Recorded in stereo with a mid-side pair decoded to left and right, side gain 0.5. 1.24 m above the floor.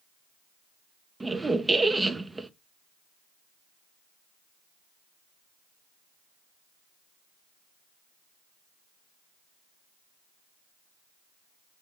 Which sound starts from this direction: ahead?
A squeak, at 1.2 s.